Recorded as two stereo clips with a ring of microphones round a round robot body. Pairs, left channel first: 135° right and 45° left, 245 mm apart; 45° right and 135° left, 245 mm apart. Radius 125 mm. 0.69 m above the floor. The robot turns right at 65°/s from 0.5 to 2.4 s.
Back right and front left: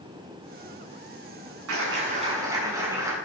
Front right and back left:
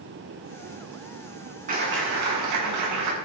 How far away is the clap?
About 7.5 m.